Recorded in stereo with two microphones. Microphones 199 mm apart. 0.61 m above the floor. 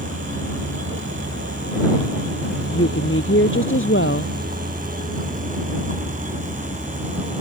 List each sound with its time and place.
0.0 s a vehicle: 90° right; by 7.4 s 30° right (ahead or behind)
2.7 s a woman speaking: 85° left